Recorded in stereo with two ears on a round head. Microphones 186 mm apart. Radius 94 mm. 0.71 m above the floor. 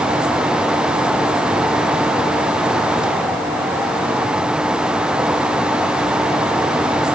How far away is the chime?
No chime in this recording.